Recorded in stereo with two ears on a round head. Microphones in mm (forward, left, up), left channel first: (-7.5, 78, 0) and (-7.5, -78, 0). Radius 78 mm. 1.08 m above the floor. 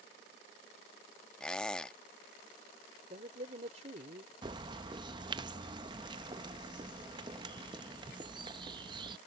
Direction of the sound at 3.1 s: 40° right (ahead or behind).